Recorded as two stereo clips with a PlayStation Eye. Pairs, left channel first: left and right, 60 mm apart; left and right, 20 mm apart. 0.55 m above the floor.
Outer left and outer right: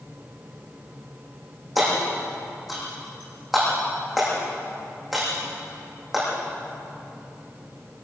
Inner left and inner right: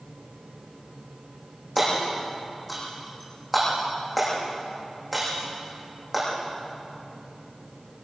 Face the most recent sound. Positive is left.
turn(degrees=0)  # may be behind; listen again after turning